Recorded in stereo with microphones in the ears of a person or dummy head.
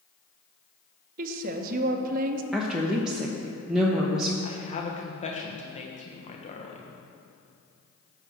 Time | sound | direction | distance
1.2 | a woman speaking | 55° right (ahead or behind) | 1.0 m
2.5 | a woman speaking | 5° right (ahead or behind) | 1.0 m
4.4 | a woman speaking | 35° left (ahead or behind) | 1.2 m